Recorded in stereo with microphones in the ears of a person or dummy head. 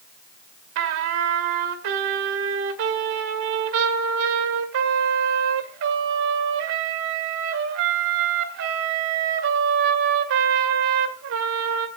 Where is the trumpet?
55° right (ahead or behind), 1.8 m.